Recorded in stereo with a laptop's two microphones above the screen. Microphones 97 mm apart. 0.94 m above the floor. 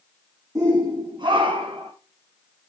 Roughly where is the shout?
Right.